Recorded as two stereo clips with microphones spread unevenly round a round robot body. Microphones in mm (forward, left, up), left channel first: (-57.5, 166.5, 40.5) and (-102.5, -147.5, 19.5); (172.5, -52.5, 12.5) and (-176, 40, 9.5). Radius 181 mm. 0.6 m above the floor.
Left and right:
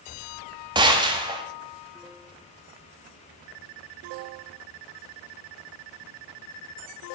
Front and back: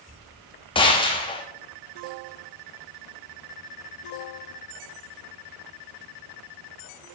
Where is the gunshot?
65° right, 1.2 m.